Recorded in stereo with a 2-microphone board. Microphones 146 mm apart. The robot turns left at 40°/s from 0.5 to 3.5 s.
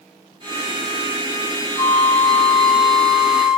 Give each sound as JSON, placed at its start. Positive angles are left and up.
{"t": 1.8, "sound": "a flute", "azimuth_deg": 60, "distance_m": 2.0}